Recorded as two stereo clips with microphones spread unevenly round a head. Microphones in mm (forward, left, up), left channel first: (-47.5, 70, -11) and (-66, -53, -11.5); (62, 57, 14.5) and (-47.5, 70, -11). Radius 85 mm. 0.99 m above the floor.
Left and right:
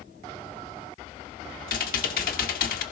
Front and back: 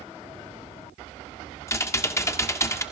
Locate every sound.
1.7 s typing on a keyboard: 55° left, 1.3 m